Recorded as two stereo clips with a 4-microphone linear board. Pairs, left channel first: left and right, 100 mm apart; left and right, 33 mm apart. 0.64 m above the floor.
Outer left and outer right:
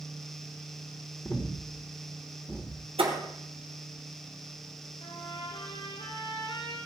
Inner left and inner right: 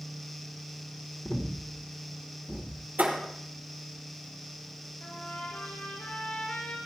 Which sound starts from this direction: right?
A thud, at 3.0 s.